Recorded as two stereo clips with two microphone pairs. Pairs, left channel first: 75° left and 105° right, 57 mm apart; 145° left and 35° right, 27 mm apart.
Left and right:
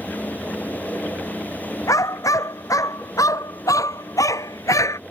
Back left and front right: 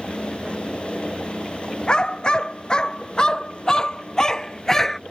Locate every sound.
1.9 s a dog barking: 95° left; by 5.0 s 70° left